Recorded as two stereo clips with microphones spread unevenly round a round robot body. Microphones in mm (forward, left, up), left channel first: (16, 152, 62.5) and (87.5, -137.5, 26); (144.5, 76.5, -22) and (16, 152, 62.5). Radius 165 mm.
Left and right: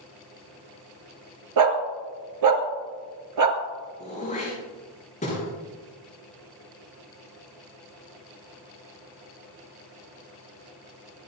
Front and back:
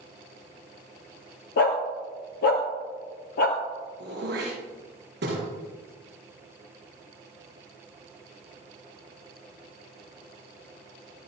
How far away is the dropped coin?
I don't hear a dropped coin.